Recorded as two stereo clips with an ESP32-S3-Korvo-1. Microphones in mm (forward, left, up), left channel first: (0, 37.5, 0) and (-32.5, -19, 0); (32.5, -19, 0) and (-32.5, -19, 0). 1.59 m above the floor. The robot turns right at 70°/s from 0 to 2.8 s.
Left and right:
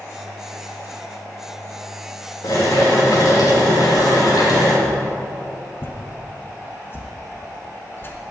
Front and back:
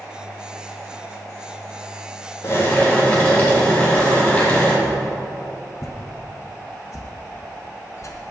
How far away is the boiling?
About 3.5 m.